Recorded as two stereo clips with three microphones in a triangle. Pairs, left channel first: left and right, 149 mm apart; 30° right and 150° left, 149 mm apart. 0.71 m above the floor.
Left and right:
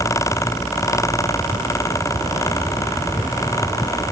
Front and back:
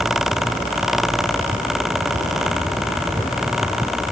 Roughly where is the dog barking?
I don't hear a dog barking.